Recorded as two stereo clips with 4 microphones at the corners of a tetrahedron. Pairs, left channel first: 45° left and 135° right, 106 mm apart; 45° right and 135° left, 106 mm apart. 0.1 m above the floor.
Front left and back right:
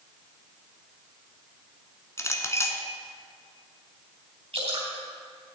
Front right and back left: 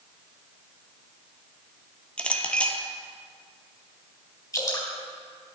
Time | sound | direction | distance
2.2 | a clink | 20° left | 0.9 m
4.5 | dripping | 110° right | 3.5 m